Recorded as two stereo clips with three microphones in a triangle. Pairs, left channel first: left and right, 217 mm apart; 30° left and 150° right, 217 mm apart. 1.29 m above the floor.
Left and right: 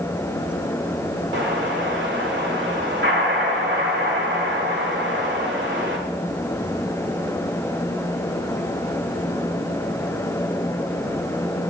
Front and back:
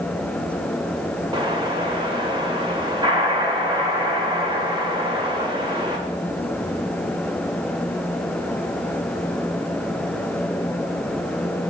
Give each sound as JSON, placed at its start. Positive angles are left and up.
{"t": 1.3, "sound": "an explosion", "azimuth_deg": -85, "distance_m": 1.6}